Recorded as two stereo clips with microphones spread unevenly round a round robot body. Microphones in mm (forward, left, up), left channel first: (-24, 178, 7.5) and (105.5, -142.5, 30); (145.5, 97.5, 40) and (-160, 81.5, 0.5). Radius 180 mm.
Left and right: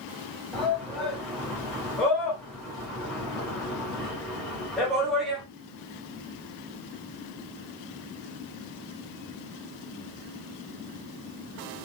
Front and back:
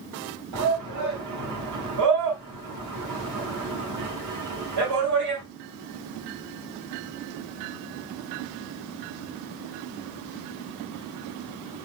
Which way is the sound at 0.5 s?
160° right.